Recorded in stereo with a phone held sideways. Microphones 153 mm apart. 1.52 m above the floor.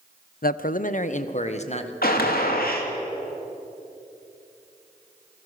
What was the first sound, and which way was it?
A man speaking, 70° left (ahead or behind).